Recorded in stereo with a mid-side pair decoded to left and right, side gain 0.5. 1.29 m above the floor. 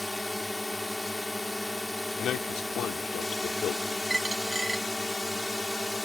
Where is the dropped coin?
15° right.